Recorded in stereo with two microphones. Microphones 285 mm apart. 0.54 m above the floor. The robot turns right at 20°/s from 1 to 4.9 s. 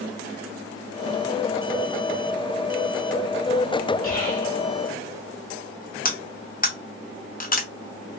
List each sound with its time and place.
4.0 s whispering: 50° right (ahead or behind), 2.0 m
6.0 s cutlery clinking: 35° left (ahead or behind), 0.6 m